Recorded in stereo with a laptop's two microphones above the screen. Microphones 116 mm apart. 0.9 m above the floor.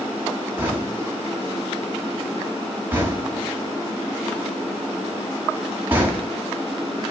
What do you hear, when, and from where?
0.6 s knocking: 15° right (ahead or behind), 1.7 m